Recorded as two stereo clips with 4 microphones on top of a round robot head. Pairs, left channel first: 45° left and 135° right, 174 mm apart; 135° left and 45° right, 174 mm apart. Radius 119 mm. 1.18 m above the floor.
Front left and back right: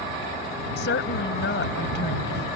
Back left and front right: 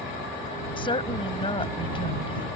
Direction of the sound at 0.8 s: 70° left.